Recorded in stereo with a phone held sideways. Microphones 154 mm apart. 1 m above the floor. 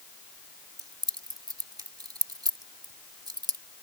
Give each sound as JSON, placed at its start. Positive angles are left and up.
{"t": 0.8, "sound": "keys jangling", "side_deg": -25}